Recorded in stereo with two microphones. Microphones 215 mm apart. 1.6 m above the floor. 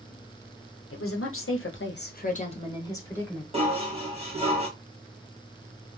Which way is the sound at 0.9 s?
85° left.